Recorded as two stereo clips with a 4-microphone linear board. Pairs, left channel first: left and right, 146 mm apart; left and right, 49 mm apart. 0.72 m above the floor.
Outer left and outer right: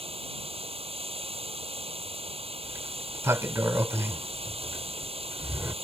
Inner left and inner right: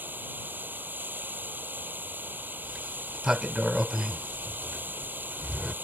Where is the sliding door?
20° right (ahead or behind).